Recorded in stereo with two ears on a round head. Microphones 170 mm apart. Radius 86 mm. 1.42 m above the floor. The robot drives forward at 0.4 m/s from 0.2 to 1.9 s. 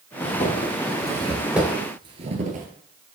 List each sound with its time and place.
0.2 s footsteps: 40° left (ahead or behind), 2 m; by 2.7 s 45° right (ahead or behind), 2.0 m